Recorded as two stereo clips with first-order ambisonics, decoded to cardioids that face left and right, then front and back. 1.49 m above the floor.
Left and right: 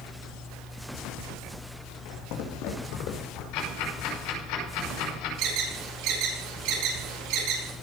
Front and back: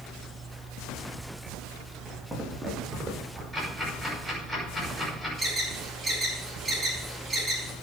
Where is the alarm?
100° right, 4.5 m.